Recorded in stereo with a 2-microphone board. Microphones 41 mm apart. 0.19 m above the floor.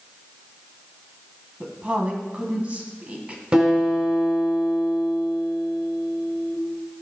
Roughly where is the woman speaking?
Right.